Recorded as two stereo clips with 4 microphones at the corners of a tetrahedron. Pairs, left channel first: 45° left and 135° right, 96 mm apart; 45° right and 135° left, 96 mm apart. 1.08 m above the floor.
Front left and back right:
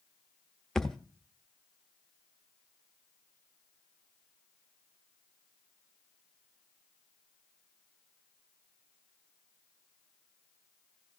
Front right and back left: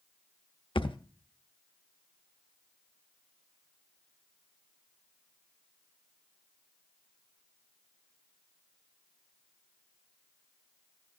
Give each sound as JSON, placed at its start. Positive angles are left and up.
{"t": 0.8, "sound": "a thud", "azimuth_deg": -40, "distance_m": 0.7}